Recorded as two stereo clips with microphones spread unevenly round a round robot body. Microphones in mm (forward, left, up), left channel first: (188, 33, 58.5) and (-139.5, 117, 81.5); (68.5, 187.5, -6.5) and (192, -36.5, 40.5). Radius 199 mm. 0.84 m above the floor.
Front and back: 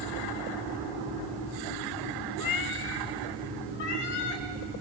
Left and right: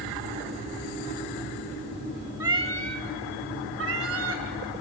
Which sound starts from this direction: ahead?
A cat meowing, at 2.4 s.